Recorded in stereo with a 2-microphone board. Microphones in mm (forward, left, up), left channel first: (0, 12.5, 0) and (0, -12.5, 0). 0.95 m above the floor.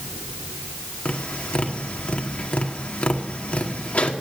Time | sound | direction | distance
1.1 | tapping | 70° left (ahead or behind) | 2 m